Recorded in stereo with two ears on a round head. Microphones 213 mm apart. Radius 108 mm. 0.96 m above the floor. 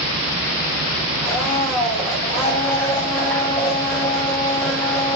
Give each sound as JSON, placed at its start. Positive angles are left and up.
{"t": 1.2, "sound": "a blender", "side_deg": 10, "distance_m": 2.0}